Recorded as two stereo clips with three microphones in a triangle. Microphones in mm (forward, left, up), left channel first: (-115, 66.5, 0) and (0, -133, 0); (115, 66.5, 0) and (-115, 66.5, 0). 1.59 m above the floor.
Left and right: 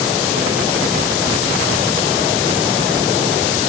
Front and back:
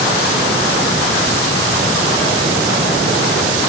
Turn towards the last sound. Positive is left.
No sound to turn to.